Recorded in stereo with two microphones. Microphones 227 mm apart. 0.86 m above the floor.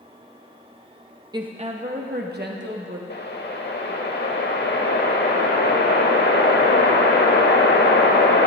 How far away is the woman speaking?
About 0.6 m.